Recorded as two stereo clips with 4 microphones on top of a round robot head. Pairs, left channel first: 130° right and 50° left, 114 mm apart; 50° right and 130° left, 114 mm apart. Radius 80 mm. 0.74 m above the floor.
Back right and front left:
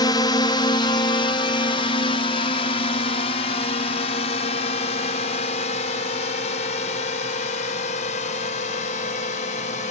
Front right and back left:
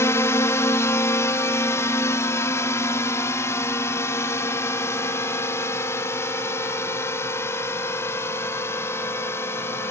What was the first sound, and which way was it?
A drone, 105° right.